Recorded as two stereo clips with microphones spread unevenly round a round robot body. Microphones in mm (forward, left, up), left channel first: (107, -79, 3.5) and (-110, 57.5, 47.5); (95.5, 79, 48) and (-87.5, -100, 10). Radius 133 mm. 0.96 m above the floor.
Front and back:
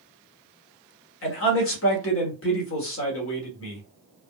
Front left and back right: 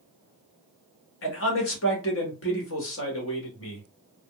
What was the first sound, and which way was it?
A man speaking, straight ahead.